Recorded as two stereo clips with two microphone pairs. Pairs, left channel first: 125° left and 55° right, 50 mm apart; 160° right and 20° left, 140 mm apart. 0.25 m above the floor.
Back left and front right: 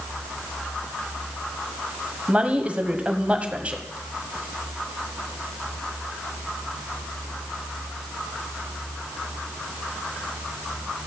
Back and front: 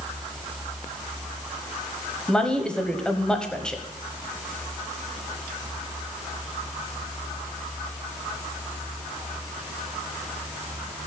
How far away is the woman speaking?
About 1.2 m.